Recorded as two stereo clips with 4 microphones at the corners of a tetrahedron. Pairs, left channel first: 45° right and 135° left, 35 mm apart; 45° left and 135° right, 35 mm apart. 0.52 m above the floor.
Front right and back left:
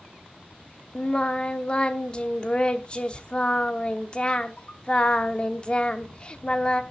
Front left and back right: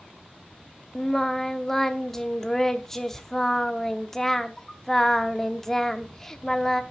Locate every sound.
0.9 s singing: 20° right, 0.9 m